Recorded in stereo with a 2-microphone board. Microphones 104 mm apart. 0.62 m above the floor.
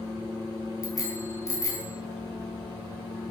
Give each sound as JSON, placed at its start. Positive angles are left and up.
{"t": 0.8, "sound": "a bicycle bell", "side_deg": 30, "distance_m": 4.5}